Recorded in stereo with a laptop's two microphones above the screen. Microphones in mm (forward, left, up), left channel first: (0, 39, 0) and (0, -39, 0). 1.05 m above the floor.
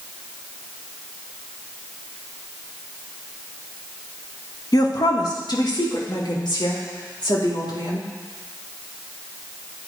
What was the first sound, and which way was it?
A woman speaking, 50° left (ahead or behind).